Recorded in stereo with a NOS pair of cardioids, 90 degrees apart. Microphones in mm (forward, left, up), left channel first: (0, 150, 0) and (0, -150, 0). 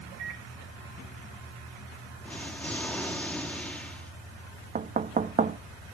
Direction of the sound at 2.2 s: 5° left.